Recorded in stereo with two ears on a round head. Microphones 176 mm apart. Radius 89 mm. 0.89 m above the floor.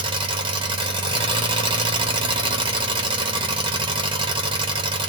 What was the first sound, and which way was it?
An engine running, 25° right (ahead or behind).